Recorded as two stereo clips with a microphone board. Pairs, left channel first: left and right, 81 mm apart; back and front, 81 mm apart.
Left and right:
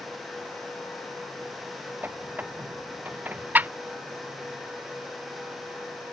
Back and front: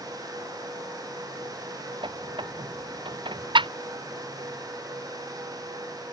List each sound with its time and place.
2.0 s a squeak: 20° right